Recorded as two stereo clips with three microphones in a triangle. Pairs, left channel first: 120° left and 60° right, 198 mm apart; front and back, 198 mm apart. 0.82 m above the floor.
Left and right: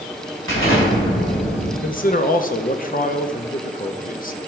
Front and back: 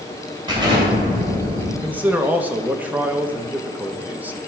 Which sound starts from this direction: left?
A man speaking, at 1.8 s.